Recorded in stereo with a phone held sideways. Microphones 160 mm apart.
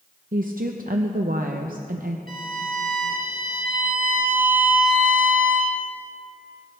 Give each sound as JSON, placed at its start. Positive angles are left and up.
{"t": 0.3, "sound": "a woman speaking", "side_deg": -60, "distance_m": 0.7}
{"t": 2.3, "sound": "a violin", "side_deg": -65, "distance_m": 2.0}